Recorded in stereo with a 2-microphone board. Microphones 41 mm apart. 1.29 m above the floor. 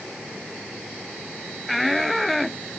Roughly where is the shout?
Centre.